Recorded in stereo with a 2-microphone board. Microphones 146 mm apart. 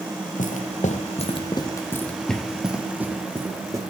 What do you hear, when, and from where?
0.4 s footsteps: 70° left (ahead or behind), 1.4 m; by 3.8 s 20° right (ahead or behind), 2.5 m